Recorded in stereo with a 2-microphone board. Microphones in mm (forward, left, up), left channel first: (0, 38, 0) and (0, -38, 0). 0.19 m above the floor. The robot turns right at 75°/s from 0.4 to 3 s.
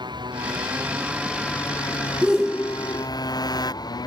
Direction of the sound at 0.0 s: 70° right (ahead or behind).